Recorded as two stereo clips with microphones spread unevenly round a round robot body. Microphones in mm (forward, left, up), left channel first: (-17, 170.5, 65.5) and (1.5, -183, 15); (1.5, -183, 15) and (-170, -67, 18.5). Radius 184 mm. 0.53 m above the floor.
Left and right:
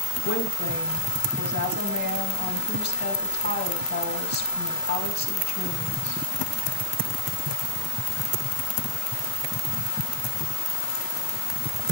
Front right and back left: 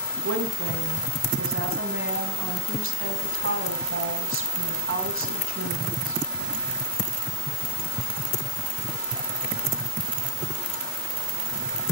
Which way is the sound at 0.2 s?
155° left.